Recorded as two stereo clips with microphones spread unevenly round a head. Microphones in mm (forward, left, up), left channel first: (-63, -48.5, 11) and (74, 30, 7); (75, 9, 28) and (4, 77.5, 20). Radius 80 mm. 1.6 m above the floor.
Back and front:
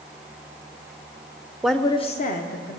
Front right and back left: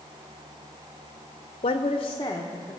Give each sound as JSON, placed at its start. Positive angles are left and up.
{"t": 1.6, "sound": "a woman speaking", "azimuth_deg": -55, "distance_m": 0.6}